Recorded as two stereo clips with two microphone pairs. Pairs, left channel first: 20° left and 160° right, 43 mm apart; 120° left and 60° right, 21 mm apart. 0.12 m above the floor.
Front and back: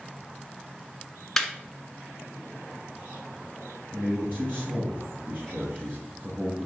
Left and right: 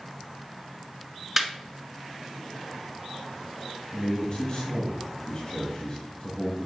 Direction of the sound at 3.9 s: 170° left.